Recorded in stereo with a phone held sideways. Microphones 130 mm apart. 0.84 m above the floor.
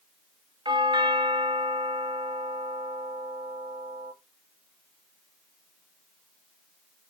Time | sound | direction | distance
0.7 | a doorbell | 40° right (ahead or behind) | 2 m